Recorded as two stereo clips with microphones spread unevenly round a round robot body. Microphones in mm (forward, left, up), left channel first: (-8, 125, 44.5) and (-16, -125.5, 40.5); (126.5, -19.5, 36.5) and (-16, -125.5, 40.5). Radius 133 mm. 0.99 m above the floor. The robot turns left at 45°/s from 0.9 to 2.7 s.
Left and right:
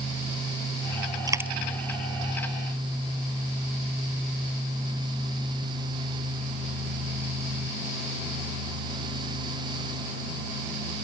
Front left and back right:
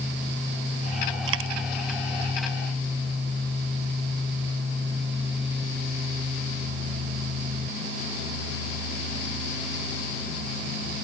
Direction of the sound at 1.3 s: 165° right.